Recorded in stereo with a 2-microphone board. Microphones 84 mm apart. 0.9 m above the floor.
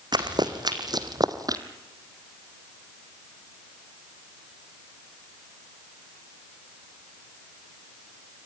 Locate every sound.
0.1 s running footsteps: 55° right (ahead or behind), 2.5 m; by 1.6 s 45° right (ahead or behind), 1.3 m